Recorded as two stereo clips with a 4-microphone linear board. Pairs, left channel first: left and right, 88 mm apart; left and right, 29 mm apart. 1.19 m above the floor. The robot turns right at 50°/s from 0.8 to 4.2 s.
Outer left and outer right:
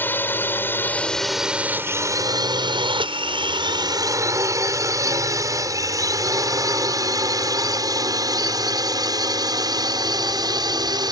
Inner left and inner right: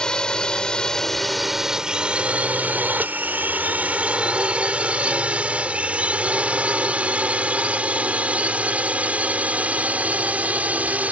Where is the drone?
25° left (ahead or behind); by 11.1 s 55° right (ahead or behind).